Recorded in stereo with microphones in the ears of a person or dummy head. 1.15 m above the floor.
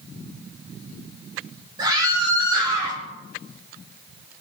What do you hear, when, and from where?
1.8 s a scream: 20° right (ahead or behind), 4.5 m